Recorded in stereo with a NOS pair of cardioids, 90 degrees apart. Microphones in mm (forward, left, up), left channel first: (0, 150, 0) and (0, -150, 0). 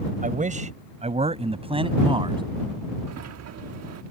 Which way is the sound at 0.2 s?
25° right.